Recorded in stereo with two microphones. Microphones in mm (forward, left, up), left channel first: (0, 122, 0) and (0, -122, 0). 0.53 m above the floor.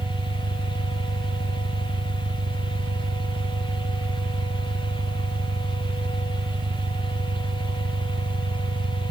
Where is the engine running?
45° right (ahead or behind).